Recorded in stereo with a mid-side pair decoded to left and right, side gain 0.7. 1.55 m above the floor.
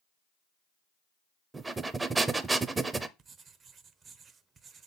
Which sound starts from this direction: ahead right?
Writing, at 3.2 s.